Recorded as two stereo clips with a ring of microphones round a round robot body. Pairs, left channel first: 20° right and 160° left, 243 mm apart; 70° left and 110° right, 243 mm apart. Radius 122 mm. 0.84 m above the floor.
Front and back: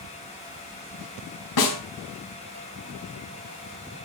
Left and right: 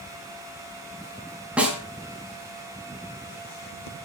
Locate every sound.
1.6 s a snare drum: 25° right, 4 m